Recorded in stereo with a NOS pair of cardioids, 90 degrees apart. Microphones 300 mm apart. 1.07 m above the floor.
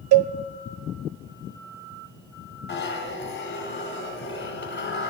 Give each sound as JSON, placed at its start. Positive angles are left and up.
{"t": 0.1, "sound": "a cowbell", "azimuth_deg": -60, "distance_m": 0.6}
{"t": 2.7, "sound": "a zipper", "azimuth_deg": 40, "distance_m": 2.5}